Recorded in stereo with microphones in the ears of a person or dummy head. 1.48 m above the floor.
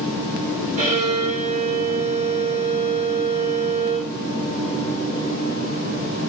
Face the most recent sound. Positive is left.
turn(degrees=-35)  # may be behind; listen again after turning